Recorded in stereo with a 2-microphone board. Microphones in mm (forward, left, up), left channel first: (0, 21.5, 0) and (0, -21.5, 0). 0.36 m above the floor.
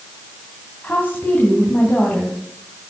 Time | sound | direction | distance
0.8 | a woman speaking | 45° left (ahead or behind) | 2.5 m